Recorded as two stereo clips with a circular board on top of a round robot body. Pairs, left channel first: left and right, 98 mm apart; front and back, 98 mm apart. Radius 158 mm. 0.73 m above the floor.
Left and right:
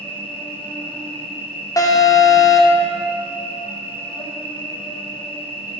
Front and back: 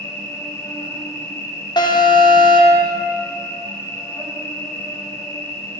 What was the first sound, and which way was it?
An insect, 60° left.